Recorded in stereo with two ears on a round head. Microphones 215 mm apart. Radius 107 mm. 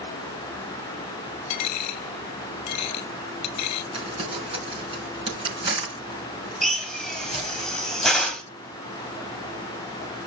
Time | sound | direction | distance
1.5 | a dropped coin | 75° left (ahead or behind) | 0.7 m
3.9 | crumpling | 20° right (ahead or behind) | 4 m
6.6 | a drill | centre (ahead or behind) | 2.5 m